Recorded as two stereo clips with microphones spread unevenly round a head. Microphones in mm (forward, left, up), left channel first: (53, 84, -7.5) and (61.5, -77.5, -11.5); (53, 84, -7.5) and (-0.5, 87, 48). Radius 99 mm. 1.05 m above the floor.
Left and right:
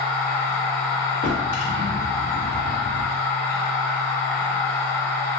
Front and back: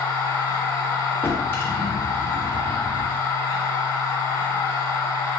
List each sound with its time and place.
0.0 s a machine running: 30° left, 1.7 m
1.2 s a drawer: 95° left, 0.8 m